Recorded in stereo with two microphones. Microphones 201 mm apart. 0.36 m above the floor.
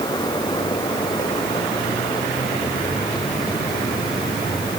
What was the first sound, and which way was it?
Only background noise.